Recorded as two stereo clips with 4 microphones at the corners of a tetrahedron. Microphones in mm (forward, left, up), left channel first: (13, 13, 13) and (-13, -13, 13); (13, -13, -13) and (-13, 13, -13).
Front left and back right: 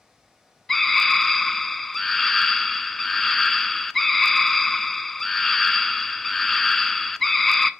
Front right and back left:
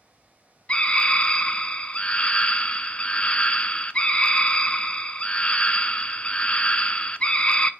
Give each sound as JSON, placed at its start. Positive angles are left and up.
{"t": 0.7, "sound": "a scream", "azimuth_deg": -35, "distance_m": 0.6}